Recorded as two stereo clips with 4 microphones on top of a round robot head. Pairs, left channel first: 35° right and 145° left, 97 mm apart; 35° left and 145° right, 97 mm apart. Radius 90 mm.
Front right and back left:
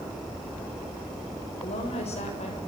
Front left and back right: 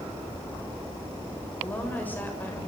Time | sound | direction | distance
1.6 | a woman speaking | 35° right | 7.5 m